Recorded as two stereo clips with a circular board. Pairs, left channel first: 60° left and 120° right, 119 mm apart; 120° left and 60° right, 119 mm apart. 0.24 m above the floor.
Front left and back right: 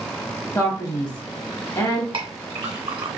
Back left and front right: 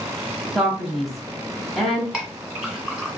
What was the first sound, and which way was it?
A man speaking, 30° left.